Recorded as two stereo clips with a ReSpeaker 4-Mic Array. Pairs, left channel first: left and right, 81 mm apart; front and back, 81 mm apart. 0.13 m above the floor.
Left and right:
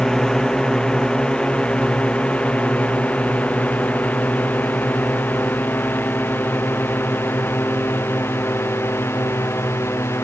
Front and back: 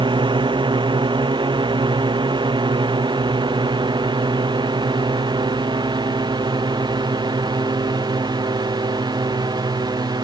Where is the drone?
175° left; by 10.2 s 150° left.